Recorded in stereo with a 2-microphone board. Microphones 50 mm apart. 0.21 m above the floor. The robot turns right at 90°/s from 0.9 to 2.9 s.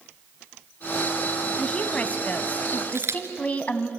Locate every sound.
1.6 s a woman speaking: 10° left, 1.6 m; by 3.9 s 130° left, 1.6 m
2.9 s a camera shutter: 65° right (ahead or behind), 1.9 m